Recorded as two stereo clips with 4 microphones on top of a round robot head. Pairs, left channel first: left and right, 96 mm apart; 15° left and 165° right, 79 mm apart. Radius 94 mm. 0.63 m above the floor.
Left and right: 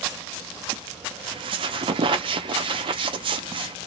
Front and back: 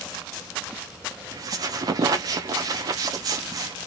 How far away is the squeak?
About 0.6 m.